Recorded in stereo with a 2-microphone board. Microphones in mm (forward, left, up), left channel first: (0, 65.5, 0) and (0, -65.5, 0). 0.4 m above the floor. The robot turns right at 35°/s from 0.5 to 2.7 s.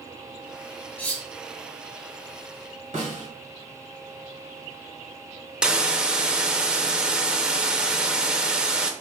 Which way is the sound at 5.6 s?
5° right (ahead or behind).